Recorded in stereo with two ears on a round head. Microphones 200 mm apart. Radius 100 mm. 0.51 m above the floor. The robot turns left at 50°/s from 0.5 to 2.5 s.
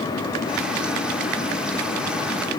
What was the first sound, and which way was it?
Only background noise.